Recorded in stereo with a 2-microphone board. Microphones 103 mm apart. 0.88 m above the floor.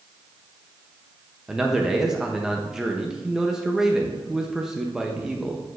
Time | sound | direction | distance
1.5 | a man speaking | 5° right (ahead or behind) | 0.6 m